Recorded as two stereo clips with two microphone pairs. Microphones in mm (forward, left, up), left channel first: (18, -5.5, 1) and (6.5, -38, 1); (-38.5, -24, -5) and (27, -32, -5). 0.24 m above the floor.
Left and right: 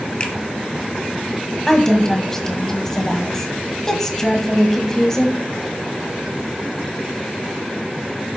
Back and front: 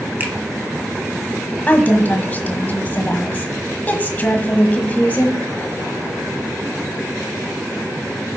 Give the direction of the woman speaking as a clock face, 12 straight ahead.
8 o'clock.